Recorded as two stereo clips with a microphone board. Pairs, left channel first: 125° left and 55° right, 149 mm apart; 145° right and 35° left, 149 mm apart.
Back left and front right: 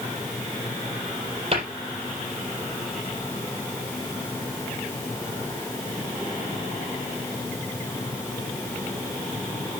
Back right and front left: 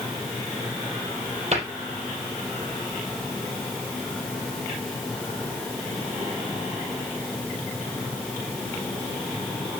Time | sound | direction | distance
1.5 | a cupboard door | 10° right | 4.5 m